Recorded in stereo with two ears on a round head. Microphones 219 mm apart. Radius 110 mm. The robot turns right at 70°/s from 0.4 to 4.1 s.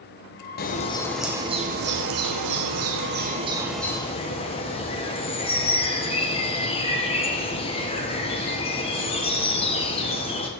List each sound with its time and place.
0.6 s a bird: 135° left, 1.7 m; by 10.5 s 25° left, 1.7 m